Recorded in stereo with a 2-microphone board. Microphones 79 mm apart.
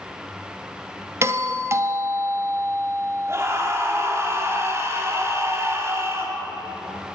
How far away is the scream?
About 3 m.